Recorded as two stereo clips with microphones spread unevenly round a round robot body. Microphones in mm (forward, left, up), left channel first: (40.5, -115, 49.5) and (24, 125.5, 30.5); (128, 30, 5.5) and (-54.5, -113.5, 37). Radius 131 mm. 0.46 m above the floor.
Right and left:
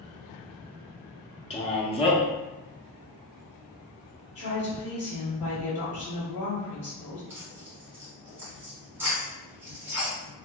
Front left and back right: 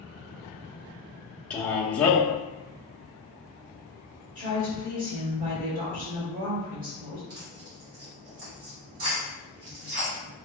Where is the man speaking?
30° right, 0.8 m.